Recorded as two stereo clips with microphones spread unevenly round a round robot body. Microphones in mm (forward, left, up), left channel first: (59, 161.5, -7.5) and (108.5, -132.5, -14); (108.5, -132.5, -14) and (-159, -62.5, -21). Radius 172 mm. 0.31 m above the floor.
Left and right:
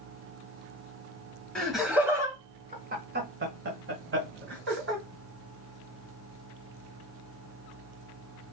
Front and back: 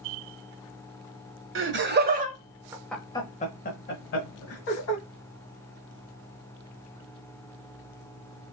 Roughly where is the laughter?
Behind.